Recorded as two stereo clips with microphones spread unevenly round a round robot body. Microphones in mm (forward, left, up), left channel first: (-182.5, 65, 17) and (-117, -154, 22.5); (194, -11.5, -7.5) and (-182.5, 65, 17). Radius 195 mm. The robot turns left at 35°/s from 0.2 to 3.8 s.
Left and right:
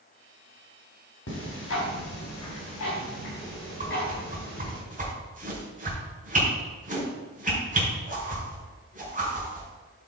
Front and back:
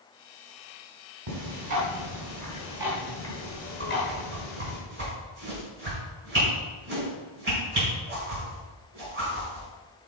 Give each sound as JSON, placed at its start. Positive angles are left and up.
{"t": 1.3, "sound": "ticking", "azimuth_deg": 140, "distance_m": 3.0}
{"t": 3.8, "sound": "a whoosh", "azimuth_deg": -130, "distance_m": 3.5}